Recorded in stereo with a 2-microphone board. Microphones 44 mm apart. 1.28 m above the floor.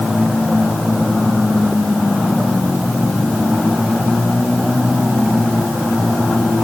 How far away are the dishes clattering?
No dishes clattering in this recording.